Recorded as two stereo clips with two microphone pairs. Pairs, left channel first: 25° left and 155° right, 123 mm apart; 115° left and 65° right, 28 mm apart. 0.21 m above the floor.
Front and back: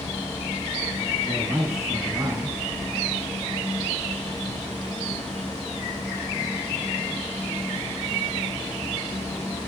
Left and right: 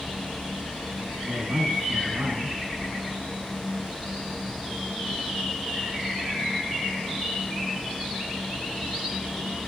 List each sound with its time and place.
1.2 s a man speaking: 90° right, 3 m